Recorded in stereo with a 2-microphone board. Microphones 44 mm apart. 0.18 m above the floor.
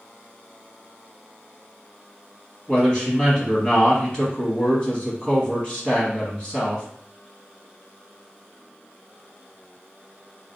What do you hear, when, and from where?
2.7 s a man speaking: 20° left (ahead or behind), 1.0 m